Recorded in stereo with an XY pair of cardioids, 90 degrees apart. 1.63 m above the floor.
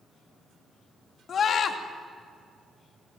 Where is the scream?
65° left, 2.5 m.